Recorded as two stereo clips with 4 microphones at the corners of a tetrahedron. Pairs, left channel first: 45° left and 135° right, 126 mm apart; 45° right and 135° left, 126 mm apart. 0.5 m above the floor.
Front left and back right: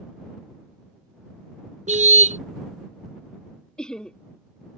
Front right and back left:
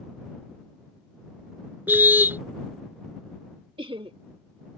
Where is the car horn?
150° right.